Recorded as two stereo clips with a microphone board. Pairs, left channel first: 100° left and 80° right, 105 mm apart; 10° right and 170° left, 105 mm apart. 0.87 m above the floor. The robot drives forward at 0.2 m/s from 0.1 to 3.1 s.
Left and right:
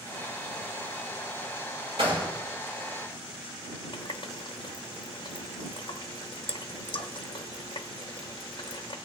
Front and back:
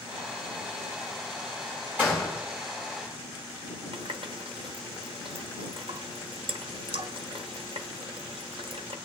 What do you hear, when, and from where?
2.0 s a gunshot: 120° right, 5.5 m
3.9 s a running tap: 140° left, 0.7 m